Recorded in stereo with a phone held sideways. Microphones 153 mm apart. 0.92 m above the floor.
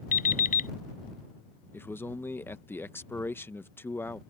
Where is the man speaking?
15° left (ahead or behind).